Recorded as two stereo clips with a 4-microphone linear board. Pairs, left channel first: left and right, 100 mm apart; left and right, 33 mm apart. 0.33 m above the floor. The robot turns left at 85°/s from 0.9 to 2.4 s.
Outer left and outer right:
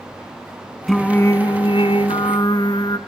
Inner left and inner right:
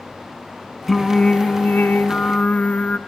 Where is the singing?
Straight behind, 1.6 m; by 3.0 s 50° left, 1.6 m.